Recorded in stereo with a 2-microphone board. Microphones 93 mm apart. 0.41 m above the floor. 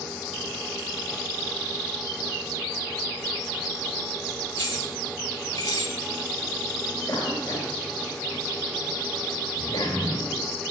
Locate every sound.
4.5 s keys jangling: 40° left (ahead or behind), 3.5 m; by 6.0 s 50° left (ahead or behind), 2.5 m
7.1 s a cough: 45° left (ahead or behind), 2.5 m